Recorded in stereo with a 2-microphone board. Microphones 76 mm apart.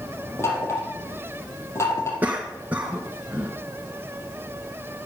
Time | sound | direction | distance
0.4 | knocking | 30° left (ahead or behind) | 4 m
2.2 | a cough | 20° right (ahead or behind) | 1.7 m